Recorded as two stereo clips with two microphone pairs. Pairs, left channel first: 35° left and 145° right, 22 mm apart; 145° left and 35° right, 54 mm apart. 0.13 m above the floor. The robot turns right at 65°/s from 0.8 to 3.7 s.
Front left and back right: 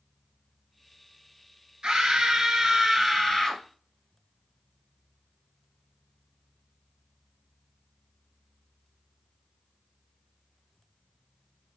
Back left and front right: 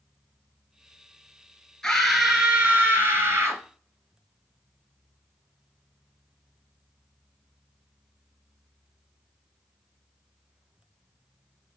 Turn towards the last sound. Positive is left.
turn(degrees=-20)